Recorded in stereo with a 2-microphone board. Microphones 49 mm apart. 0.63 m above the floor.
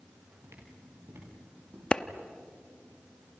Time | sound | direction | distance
0.4 | footsteps | 60° right (ahead or behind) | 7 m
1.9 | a clap | 20° left (ahead or behind) | 0.8 m